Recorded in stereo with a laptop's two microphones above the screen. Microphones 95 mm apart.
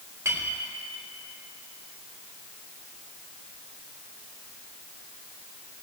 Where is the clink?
30° right (ahead or behind), 3.5 m.